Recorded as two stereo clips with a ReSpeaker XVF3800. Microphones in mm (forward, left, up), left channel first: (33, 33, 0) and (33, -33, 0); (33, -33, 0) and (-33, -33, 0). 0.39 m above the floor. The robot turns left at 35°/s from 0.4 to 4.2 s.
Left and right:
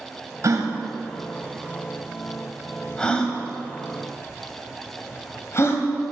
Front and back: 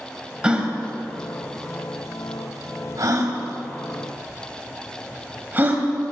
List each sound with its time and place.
0.4 s a gasp: 105° right, 1.5 m; by 5.8 s 125° left, 1.5 m